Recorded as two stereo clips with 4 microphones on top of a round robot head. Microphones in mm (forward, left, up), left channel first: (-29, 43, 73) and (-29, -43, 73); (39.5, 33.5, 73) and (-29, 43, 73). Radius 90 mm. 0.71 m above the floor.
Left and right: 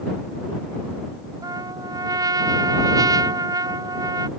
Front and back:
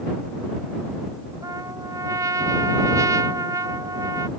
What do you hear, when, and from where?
1.4 s a trumpet: 140° right